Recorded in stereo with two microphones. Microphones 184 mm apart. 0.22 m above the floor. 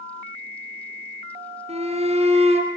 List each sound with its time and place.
1.7 s a shout: 35° right (ahead or behind), 3.5 m